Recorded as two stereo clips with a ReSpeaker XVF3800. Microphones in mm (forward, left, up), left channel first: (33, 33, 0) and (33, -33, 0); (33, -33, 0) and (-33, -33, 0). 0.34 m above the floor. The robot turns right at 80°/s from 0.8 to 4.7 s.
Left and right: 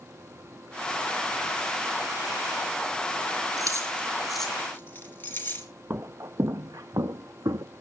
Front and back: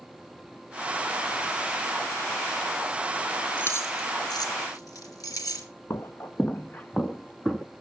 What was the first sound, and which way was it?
Keys jangling, 65° right.